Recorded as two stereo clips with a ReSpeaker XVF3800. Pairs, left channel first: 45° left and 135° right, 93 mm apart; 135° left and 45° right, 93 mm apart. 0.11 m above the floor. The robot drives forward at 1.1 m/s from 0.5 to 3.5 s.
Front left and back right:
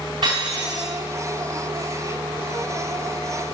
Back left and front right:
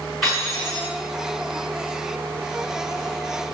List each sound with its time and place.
0.2 s cutlery clinking: 140° right, 7 m